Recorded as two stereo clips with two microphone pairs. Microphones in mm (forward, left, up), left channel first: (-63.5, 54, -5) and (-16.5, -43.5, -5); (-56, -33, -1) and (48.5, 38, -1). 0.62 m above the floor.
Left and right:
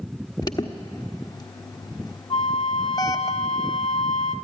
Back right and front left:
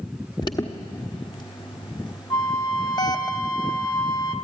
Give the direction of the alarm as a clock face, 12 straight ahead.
7 o'clock.